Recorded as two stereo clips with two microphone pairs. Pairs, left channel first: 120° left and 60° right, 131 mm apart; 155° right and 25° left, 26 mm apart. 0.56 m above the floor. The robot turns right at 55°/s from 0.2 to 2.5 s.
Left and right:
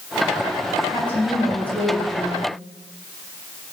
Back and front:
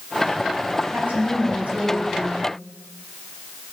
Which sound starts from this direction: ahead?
A woman speaking, at 0.9 s.